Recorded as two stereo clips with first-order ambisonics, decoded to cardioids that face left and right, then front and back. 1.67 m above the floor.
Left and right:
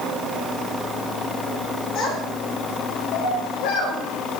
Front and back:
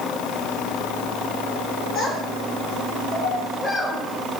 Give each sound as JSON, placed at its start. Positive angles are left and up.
{"t": 1.9, "sound": "a child speaking", "azimuth_deg": 55, "distance_m": 5.5}